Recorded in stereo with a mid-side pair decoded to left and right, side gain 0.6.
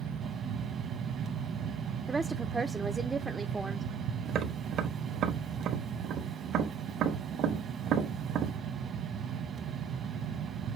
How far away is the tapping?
About 1.1 m.